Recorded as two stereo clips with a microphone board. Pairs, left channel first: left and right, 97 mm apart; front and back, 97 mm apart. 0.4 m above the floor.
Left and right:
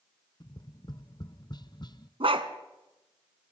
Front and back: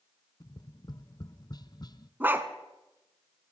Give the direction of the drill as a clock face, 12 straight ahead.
I don't hear a drill.